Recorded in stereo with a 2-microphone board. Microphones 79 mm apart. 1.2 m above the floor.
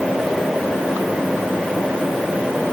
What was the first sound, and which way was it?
Only background noise.